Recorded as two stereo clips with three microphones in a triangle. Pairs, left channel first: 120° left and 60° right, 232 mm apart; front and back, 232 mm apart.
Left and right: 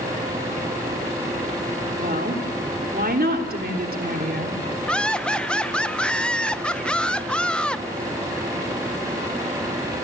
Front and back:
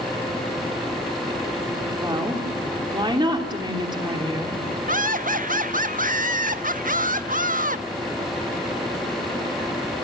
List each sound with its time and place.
2.0 s a woman speaking: 110° right, 3.5 m
4.9 s laughter: 155° right, 0.8 m